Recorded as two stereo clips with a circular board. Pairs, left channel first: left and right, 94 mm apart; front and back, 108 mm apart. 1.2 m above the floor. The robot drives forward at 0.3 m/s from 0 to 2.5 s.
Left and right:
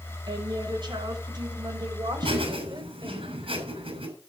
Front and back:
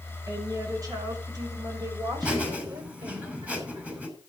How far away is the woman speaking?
About 6 m.